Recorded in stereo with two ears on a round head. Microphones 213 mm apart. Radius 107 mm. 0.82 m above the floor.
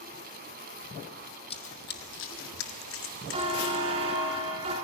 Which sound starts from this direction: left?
Running footsteps, at 1.5 s.